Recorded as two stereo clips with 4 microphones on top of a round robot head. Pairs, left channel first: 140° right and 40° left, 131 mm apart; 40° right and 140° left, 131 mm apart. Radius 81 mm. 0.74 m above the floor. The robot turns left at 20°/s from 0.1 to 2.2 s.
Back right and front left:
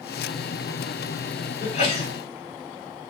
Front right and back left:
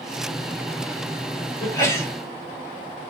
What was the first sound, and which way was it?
A sneeze, 100° right.